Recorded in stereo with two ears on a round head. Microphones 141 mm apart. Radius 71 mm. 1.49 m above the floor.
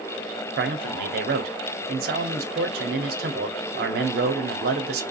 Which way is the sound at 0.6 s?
65° right (ahead or behind).